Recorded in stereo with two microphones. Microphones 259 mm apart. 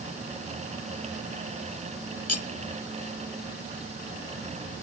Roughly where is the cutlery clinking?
Left.